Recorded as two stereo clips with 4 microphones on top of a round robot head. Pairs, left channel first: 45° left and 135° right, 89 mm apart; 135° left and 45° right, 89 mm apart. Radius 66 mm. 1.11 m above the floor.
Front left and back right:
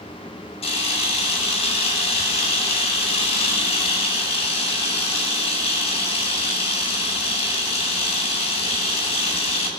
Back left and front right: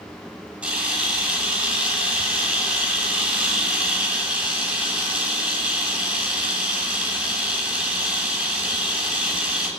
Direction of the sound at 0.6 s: 30° left.